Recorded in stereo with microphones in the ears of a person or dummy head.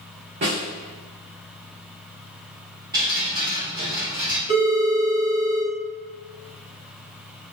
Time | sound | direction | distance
0.4 | a snare drum | 25° right (ahead or behind) | 0.7 m
2.9 | dripping | 15° right (ahead or behind) | 0.6 m
4.5 | a phone ringing | 35° left (ahead or behind) | 1.6 m